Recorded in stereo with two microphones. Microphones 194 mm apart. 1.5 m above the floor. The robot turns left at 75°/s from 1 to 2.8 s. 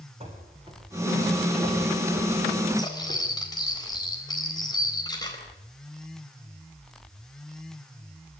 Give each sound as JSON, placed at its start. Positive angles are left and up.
{"t": 0.2, "sound": "running footsteps", "side_deg": -30, "distance_m": 5.0}
{"t": 2.8, "sound": "cutlery clinking", "side_deg": 20, "distance_m": 4.0}